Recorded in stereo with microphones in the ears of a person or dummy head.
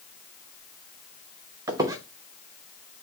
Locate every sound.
1.7 s a squeak: 15° right (ahead or behind), 0.6 m